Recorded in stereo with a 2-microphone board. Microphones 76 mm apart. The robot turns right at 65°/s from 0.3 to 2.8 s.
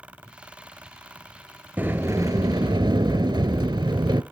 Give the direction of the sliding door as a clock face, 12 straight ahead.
5 o'clock.